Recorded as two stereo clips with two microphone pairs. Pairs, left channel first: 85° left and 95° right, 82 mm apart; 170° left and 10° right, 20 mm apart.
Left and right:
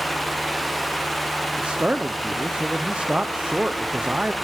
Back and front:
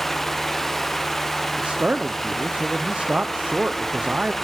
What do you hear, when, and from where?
1.6 s a man speaking: 20° right, 0.7 m